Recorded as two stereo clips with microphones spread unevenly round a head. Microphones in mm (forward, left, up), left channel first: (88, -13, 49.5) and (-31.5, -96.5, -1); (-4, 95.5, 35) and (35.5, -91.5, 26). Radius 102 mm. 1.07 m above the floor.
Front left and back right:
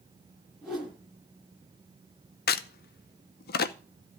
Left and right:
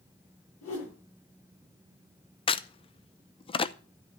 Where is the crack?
45° left, 0.8 m.